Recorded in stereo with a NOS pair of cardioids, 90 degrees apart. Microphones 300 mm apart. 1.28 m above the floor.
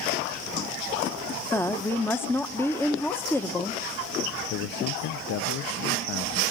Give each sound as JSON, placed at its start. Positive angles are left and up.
{"t": 1.5, "sound": "a woman speaking", "azimuth_deg": 10, "distance_m": 0.9}
{"t": 4.5, "sound": "a man speaking", "azimuth_deg": 60, "distance_m": 0.5}